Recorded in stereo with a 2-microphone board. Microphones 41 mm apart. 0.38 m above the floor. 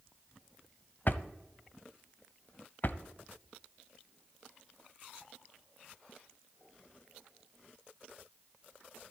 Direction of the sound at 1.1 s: 50° left (ahead or behind).